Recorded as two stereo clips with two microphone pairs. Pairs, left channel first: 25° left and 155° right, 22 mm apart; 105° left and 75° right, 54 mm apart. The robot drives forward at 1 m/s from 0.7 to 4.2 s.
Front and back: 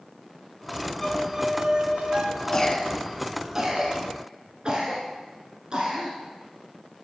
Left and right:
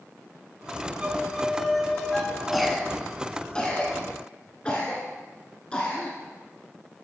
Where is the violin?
40° right, 0.6 m; by 2.9 s 175° right, 1.8 m.